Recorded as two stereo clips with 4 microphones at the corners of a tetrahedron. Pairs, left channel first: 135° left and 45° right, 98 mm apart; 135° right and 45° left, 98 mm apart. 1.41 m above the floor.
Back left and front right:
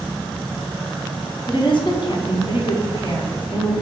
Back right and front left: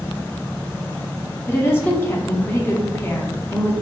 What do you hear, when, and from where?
1.5 s a woman speaking: 160° left, 0.7 m